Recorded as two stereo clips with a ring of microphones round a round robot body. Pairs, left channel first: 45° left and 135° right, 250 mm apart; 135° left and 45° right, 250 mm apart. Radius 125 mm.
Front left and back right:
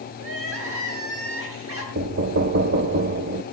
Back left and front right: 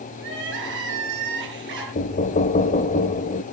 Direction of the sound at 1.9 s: 170° right.